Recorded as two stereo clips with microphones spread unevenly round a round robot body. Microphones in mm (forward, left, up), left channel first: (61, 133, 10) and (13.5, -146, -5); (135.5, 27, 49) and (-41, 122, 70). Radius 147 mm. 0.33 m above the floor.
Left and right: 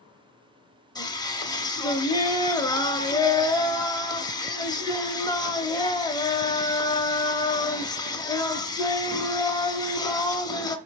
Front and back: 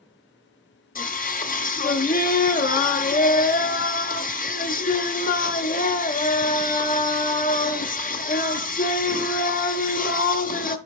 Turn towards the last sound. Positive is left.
turn(degrees=5)